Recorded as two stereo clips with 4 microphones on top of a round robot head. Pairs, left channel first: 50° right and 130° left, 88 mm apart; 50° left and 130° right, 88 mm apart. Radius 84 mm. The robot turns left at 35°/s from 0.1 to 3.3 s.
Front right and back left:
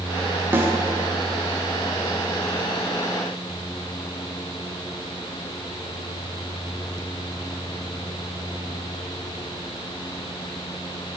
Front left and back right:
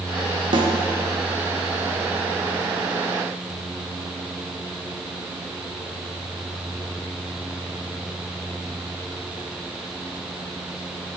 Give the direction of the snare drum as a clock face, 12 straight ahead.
5 o'clock.